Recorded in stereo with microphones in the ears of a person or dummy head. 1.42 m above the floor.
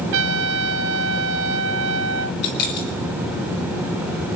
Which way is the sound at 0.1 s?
70° right (ahead or behind).